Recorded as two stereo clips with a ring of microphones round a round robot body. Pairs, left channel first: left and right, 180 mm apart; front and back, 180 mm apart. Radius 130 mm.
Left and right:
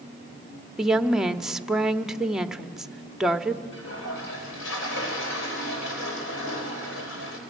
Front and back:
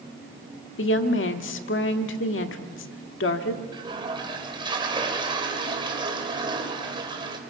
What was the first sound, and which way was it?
A woman speaking, 5° right.